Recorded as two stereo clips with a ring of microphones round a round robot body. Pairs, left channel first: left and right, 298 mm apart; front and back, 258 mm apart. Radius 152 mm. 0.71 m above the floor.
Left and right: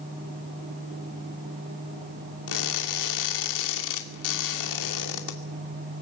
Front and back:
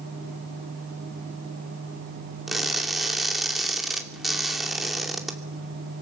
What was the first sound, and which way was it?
Crushing, 90° left.